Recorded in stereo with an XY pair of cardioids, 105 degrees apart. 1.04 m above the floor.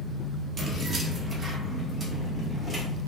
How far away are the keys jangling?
About 1.1 m.